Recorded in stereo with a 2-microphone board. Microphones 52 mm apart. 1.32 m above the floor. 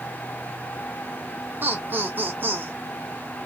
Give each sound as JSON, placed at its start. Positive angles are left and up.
{"t": 1.6, "sound": "laughter", "side_deg": -40, "distance_m": 0.5}